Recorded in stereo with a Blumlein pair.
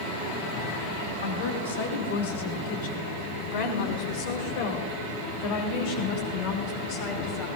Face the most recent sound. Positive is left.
turn(degrees=45)